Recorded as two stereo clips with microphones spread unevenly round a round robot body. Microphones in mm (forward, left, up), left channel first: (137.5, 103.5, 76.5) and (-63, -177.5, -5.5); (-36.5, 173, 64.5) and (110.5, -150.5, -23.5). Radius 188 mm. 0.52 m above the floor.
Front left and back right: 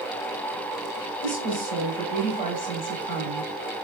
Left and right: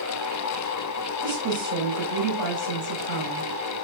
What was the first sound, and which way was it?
A woman speaking, 20° right.